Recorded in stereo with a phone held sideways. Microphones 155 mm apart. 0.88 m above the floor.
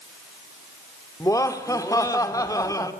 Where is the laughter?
20° left (ahead or behind), 3 m.